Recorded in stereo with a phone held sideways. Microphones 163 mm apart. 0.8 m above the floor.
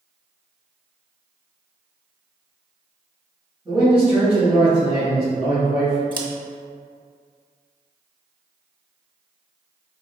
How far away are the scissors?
About 0.6 m.